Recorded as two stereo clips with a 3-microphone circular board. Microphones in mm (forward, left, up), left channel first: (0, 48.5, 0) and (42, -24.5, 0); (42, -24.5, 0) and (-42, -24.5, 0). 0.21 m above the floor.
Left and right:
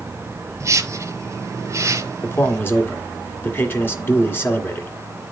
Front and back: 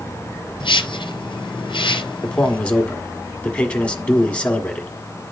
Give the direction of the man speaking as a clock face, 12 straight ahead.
10 o'clock.